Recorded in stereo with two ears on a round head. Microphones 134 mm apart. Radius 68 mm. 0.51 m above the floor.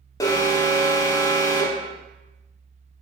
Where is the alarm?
20° left (ahead or behind), 0.7 m.